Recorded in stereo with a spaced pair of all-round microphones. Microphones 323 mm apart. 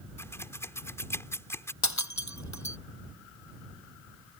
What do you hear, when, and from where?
0.2 s scissors: 10° left (ahead or behind)
1.8 s breaking glass: 60° left (ahead or behind)